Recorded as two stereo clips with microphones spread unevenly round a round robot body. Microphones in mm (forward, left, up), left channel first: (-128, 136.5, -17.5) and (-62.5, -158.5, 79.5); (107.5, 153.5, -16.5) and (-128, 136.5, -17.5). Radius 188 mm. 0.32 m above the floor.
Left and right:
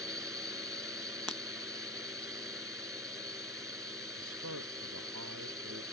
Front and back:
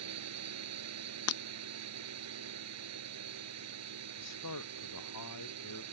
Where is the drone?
165° right.